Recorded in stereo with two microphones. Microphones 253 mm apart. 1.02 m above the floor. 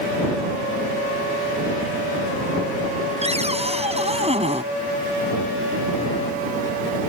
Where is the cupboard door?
25° right (ahead or behind).